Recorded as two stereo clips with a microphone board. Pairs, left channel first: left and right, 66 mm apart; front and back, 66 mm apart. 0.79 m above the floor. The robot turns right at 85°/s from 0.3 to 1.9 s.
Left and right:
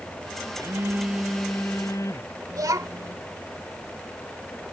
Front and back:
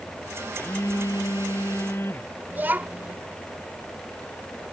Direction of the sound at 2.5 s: 115° right.